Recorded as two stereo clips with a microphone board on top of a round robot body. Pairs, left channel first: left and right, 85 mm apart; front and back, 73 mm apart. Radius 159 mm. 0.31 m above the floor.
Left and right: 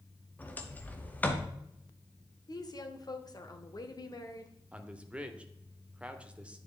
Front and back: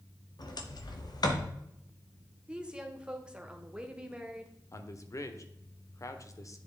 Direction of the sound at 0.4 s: 20° left.